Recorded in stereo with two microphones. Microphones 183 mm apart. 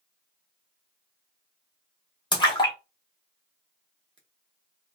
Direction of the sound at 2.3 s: 25° left (ahead or behind).